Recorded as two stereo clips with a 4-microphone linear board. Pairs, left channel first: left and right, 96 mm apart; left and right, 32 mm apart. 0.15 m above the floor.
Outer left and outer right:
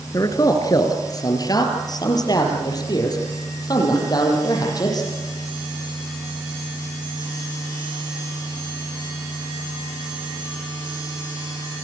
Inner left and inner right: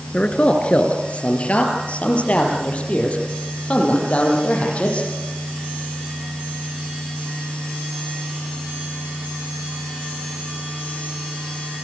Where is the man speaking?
35° left (ahead or behind), 2.5 m; by 5.1 s 40° left (ahead or behind), 7.5 m.